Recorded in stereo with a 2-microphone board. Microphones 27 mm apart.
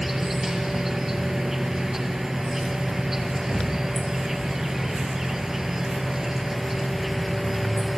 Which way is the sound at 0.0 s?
15° right (ahead or behind).